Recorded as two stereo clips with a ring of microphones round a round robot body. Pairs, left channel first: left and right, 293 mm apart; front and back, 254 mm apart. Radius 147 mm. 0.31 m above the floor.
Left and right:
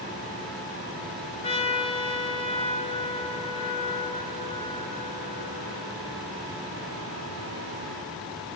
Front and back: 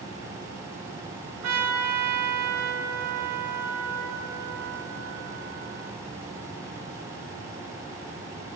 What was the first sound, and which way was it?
A trumpet, 160° left.